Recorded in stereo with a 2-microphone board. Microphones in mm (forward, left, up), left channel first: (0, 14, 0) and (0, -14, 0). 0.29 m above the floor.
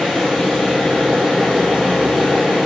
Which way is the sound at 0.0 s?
Centre (ahead or behind).